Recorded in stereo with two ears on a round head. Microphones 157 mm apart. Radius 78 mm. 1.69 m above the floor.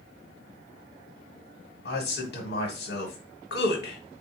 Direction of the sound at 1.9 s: 65° left (ahead or behind).